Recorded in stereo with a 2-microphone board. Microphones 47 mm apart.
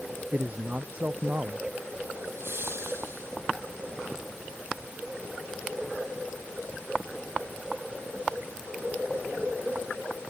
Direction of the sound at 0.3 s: 35° right (ahead or behind).